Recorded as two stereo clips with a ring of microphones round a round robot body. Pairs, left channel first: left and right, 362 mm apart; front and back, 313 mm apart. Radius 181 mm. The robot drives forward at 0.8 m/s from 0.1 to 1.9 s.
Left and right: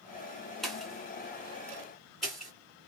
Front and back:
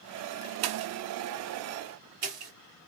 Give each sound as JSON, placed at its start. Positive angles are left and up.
{"t": 0.6, "sound": "a pop", "azimuth_deg": 180, "distance_m": 0.6}